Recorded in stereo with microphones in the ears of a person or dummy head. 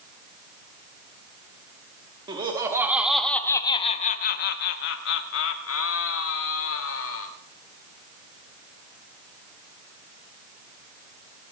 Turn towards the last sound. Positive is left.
turn(degrees=80)